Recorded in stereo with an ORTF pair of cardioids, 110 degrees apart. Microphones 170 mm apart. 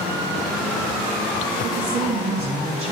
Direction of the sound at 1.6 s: 45° right.